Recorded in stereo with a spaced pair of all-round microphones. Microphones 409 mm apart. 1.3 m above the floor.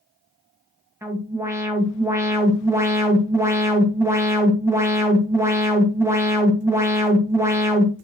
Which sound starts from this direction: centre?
An alarm, at 1.0 s.